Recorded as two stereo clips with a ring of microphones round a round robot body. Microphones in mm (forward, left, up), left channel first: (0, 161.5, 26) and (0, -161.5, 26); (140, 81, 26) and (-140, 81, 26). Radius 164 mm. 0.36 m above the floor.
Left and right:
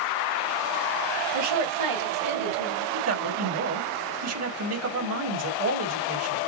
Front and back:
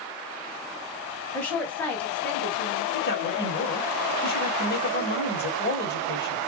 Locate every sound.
1.3 s a woman speaking: 85° right, 2.5 m
2.9 s a man speaking: 55° right, 2.0 m